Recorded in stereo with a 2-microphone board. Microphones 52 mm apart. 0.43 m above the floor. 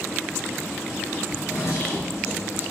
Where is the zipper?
75° left (ahead or behind), 1.6 m.